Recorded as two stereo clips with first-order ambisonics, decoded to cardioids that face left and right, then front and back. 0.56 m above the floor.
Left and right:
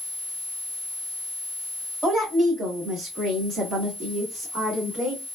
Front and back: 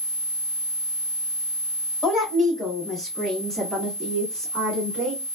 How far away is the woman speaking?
About 1.3 m.